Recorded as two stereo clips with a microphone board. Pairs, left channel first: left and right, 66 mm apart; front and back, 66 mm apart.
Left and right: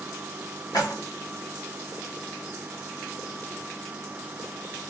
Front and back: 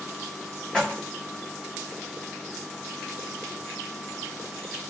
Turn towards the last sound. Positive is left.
turn(degrees=75)